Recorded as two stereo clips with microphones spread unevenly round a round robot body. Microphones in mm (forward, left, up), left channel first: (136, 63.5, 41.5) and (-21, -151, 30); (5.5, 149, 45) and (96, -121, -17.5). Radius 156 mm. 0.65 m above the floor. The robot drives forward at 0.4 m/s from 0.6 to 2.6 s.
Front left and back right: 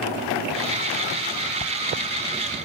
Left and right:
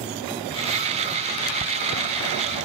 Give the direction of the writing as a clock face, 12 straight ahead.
12 o'clock.